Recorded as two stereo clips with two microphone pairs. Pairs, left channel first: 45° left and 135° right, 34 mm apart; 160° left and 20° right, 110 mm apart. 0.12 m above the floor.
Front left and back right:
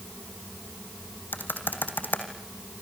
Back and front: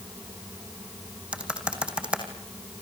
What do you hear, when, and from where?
1.3 s typing on a keyboard: 60° left, 3 m